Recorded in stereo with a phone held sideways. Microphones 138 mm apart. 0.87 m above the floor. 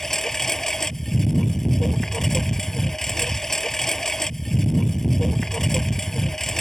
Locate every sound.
0.0 s a lawn mower: 5° left (ahead or behind)